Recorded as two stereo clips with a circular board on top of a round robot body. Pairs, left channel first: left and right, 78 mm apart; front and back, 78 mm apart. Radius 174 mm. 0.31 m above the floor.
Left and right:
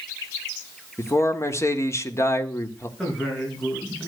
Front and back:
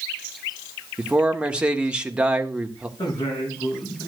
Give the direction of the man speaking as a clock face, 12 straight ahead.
8 o'clock.